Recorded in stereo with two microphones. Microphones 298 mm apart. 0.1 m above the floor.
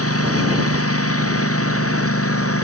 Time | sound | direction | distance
0.0 | a lawn mower | 50° left (ahead or behind) | ?